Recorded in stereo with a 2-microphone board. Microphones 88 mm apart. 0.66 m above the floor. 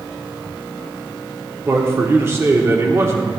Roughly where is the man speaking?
Right.